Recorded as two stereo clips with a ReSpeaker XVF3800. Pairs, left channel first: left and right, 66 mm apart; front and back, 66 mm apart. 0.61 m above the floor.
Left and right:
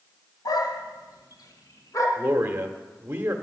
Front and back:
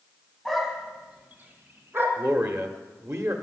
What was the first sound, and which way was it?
A dog barking, 85° left.